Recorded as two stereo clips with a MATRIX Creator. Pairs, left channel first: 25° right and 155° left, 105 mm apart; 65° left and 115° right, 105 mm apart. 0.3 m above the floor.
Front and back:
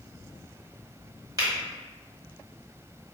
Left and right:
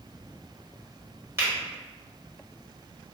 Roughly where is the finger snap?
Behind.